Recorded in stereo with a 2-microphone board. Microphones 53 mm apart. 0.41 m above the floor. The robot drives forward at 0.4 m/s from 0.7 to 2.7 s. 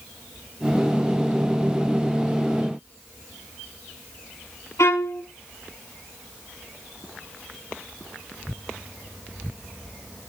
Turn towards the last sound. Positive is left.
turn(degrees=75)  # may be behind; listen again after turning